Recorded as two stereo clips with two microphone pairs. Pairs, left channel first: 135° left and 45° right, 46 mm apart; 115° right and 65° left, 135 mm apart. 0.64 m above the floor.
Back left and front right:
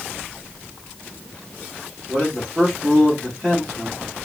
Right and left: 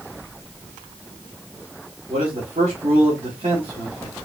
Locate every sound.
2.1 s a man speaking: 30° left, 2.5 m